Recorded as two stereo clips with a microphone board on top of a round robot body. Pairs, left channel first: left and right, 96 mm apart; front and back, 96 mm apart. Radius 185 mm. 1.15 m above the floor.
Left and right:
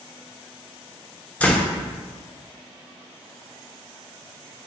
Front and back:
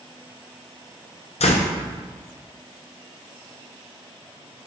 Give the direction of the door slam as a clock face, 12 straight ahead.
12 o'clock.